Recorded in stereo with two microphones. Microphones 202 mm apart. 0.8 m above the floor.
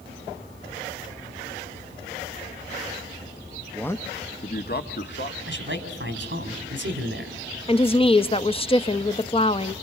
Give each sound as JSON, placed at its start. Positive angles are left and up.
{"t": 3.7, "sound": "a man speaking", "side_deg": 0, "distance_m": 0.6}
{"t": 5.5, "sound": "a man speaking", "side_deg": -65, "distance_m": 3.0}
{"t": 7.7, "sound": "a woman speaking", "side_deg": 30, "distance_m": 0.6}